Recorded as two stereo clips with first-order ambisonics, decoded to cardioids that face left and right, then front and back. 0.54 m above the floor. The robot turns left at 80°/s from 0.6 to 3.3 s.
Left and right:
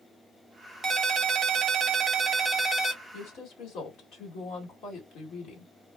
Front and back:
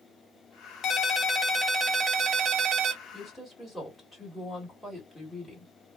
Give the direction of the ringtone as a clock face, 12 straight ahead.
1 o'clock.